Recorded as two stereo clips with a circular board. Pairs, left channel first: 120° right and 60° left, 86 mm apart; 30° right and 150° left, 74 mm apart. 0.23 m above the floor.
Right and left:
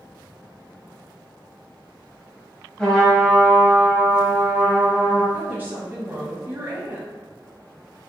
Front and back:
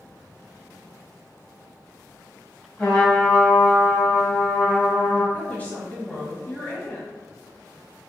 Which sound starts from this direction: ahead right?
A trumpet, at 2.8 s.